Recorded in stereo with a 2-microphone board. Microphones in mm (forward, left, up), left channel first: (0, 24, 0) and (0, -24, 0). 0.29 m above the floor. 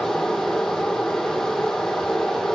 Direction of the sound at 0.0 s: 5° left (ahead or behind).